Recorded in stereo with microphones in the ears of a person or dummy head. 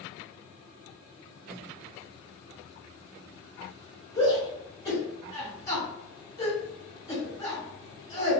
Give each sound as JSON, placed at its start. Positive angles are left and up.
{"t": 4.2, "sound": "a shout", "side_deg": 15, "distance_m": 1.8}